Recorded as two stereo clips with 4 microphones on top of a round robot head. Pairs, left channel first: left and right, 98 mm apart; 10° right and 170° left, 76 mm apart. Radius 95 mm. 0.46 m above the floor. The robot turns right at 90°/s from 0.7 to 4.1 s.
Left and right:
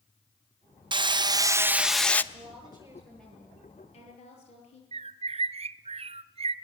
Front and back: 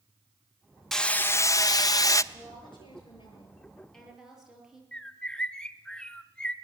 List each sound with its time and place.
0.9 s hammering: 95° right, 1.0 m; by 2.2 s 25° left, 1.0 m
2.3 s a woman speaking: 75° right, 9 m; by 4.8 s 85° left, 9 m
4.9 s a bird: 90° right, 0.9 m